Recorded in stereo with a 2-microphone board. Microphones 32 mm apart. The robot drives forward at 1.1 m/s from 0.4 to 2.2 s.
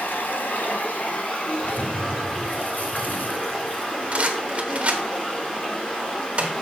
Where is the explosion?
60° left (ahead or behind), 0.9 m; by 4.2 s 65° left (ahead or behind), 0.8 m.